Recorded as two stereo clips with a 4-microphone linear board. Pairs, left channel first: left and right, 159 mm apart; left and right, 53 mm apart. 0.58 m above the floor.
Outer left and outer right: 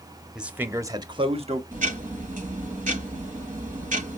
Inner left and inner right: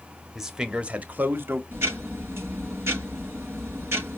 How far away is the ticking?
About 3.5 m.